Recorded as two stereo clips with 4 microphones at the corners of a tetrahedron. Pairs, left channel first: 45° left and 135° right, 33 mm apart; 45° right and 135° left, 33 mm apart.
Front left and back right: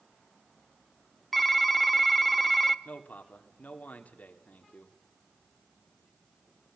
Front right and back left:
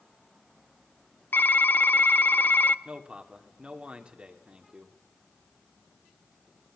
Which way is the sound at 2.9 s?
80° left.